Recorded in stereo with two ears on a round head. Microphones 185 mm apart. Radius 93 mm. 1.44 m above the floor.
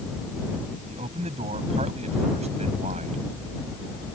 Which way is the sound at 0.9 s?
30° right (ahead or behind).